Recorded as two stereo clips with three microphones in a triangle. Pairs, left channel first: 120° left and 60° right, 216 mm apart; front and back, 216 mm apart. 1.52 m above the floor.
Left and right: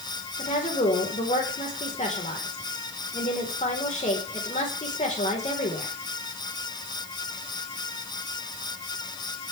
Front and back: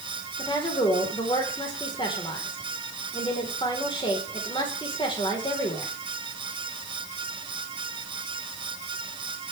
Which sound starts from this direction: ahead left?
A woman speaking, at 0.4 s.